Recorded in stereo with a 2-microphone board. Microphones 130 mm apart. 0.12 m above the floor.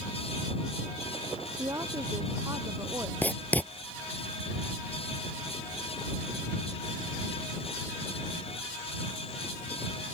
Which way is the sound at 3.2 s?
15° left (ahead or behind).